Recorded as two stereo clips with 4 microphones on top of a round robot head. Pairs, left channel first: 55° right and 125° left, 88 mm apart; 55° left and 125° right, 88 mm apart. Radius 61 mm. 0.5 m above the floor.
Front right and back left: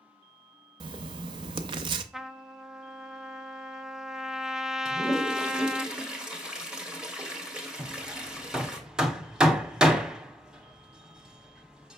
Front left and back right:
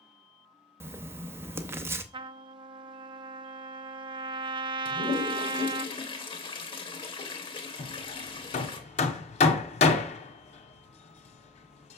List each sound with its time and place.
0.8 s writing: 165° left, 0.6 m
2.1 s a trumpet: 150° right, 0.5 m
4.8 s a toilet flushing: 45° left, 1.5 m
7.8 s hammering: 45° left, 0.7 m